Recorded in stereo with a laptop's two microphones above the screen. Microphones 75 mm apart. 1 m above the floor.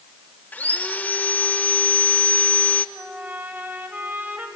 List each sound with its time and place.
0.5 s sawing: 20° left (ahead or behind), 1.3 m
3.0 s a trumpet: 20° right (ahead or behind), 3 m